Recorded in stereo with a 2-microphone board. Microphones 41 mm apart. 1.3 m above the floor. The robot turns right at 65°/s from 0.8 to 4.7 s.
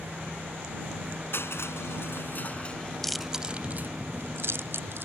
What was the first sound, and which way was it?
Crushing, 65° left (ahead or behind).